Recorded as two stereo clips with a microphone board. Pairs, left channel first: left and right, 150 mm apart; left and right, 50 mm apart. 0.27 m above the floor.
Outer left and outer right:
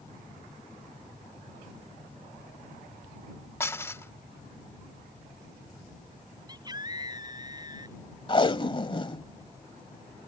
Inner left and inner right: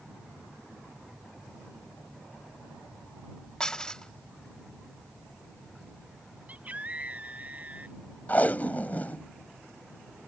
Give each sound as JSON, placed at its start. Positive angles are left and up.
{"t": 3.6, "sound": "dishes clattering", "side_deg": 15}
{"t": 6.5, "sound": "a scream", "side_deg": -25}
{"t": 8.3, "sound": "tape being pulled", "side_deg": 35}